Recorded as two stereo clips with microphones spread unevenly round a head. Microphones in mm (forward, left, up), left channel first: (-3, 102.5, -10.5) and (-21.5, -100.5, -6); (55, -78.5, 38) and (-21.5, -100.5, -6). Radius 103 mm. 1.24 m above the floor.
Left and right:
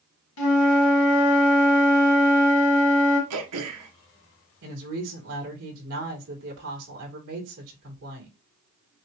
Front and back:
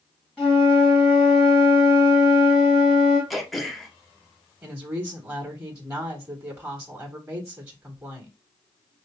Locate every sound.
0.4 s a flute: 100° left, 1.8 m
3.3 s throat clearing: 85° right, 1.1 m
4.6 s a woman speaking: 105° right, 3.5 m